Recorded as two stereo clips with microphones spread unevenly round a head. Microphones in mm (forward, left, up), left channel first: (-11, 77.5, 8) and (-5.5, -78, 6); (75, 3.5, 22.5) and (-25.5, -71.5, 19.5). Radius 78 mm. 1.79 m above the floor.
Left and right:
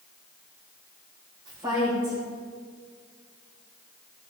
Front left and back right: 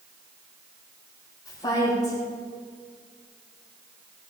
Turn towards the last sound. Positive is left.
turn(degrees=-20)